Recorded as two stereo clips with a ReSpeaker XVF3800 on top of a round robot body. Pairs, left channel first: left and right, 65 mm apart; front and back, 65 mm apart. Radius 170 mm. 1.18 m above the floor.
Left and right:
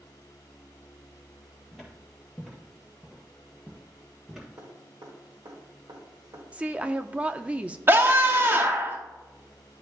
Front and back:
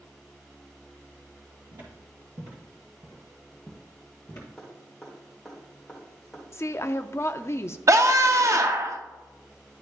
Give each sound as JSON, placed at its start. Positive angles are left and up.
{"t": 1.7, "sound": "footsteps", "azimuth_deg": -175, "distance_m": 1.8}
{"t": 4.6, "sound": "dripping", "azimuth_deg": -80, "distance_m": 1.4}
{"t": 6.5, "sound": "a woman speaking", "azimuth_deg": -25, "distance_m": 0.6}
{"t": 7.9, "sound": "a scream", "azimuth_deg": -145, "distance_m": 0.7}